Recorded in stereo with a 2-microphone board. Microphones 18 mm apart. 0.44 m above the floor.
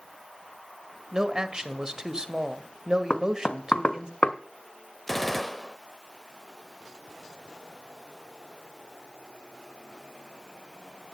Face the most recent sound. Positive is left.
turn(degrees=5)  # may be behind; listen again after turning